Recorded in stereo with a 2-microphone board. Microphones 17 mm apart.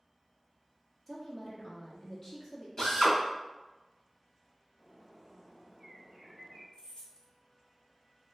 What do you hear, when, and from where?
1.1 s a woman speaking: 30° left (ahead or behind), 1.3 m
2.8 s a drill: 40° left (ahead or behind), 1.7 m
4.8 s a bird: 30° right (ahead or behind), 1.2 m
6.7 s keys jangling: 55° left (ahead or behind), 1.3 m